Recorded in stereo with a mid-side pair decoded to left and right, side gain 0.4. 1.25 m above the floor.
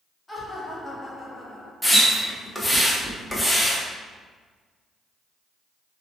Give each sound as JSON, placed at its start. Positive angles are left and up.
{"t": 0.3, "sound": "laughter", "azimuth_deg": 20, "distance_m": 1.4}
{"t": 1.8, "sound": "a splash", "azimuth_deg": 10, "distance_m": 0.8}